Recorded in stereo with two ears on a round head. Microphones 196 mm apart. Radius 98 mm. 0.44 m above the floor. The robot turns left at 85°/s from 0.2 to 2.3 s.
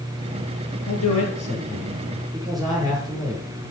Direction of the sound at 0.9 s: 105° left.